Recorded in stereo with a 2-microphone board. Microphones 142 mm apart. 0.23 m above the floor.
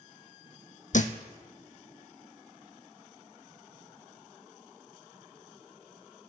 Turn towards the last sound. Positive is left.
turn(degrees=65)  # may be behind; listen again after turning